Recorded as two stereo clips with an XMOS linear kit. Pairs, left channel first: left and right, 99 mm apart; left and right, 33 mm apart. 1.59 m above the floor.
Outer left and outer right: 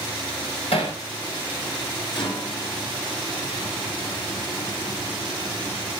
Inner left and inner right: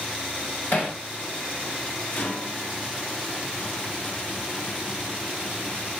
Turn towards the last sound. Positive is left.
turn(degrees=60)  # may be behind; listen again after turning